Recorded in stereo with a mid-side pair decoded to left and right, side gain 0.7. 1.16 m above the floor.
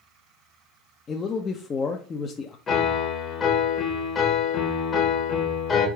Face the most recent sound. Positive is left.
turn(degrees=35)